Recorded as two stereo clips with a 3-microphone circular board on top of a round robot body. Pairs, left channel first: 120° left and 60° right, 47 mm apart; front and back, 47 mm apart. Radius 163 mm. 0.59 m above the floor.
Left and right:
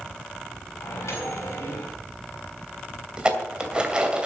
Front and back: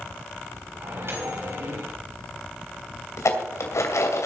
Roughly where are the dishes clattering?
Ahead.